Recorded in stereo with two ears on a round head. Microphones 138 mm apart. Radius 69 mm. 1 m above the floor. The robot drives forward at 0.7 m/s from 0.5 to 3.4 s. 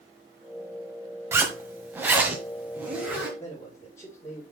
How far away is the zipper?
About 1.3 m.